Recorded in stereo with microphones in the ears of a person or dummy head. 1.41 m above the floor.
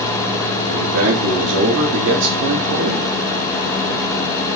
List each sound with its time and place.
0.7 s a man speaking: 65° right (ahead or behind), 3 m